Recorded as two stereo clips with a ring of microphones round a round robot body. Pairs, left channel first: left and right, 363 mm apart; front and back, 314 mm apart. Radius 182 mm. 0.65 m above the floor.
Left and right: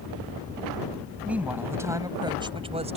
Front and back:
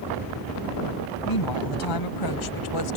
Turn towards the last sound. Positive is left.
turn(degrees=-20)